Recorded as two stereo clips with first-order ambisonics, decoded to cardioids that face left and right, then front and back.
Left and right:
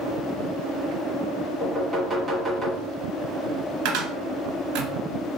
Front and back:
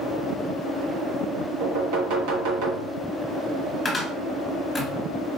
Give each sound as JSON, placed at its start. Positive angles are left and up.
{"t": 1.6, "sound": "knocking", "azimuth_deg": -170, "distance_m": 1.2}
{"t": 3.9, "sound": "a cupboard door", "azimuth_deg": -80, "distance_m": 1.4}